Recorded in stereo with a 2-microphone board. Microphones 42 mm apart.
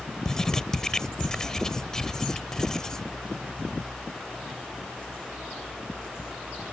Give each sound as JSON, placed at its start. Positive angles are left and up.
{"t": 0.2, "sound": "writing", "side_deg": 15}